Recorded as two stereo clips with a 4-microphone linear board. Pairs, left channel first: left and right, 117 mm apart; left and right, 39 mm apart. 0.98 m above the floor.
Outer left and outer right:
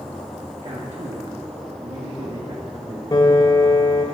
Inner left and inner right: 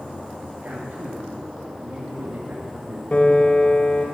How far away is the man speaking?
About 1.7 m.